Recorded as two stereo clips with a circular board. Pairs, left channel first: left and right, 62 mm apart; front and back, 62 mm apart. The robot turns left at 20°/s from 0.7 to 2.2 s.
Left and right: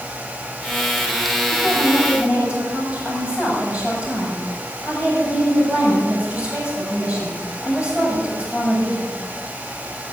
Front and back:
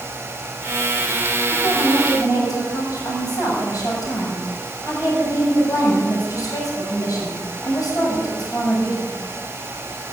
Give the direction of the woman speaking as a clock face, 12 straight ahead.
12 o'clock.